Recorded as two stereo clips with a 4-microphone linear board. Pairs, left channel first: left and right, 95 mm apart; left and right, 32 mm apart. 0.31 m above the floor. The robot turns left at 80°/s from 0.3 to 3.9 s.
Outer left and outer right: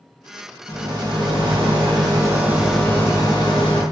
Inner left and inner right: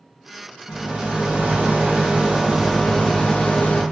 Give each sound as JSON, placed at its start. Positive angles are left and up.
{"t": 0.7, "sound": "a rattle", "azimuth_deg": -20, "distance_m": 1.8}